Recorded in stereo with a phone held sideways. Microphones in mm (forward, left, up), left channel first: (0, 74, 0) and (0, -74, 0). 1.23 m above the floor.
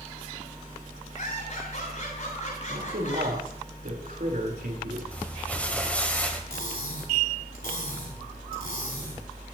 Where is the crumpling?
10° left (ahead or behind), 2.5 m.